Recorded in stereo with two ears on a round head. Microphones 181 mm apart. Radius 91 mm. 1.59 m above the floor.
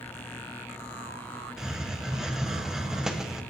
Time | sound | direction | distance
1.6 | a hiss | 5° right (ahead or behind) | 1.3 m